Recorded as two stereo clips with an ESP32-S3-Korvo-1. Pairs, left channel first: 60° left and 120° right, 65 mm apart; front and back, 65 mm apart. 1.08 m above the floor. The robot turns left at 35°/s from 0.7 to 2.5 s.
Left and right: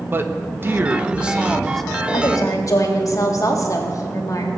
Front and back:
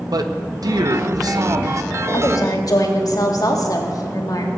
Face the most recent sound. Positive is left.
turn(degrees=25)